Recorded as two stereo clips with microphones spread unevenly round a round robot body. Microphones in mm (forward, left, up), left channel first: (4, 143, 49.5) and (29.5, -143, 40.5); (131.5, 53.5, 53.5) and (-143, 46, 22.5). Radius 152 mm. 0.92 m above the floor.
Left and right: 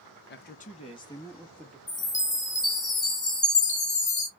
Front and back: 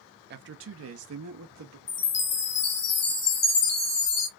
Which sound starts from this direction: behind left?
A man speaking, at 0.3 s.